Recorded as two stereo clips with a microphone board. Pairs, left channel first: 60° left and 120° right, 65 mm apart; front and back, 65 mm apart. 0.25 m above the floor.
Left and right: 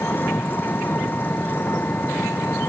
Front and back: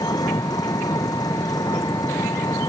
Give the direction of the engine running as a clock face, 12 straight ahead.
12 o'clock.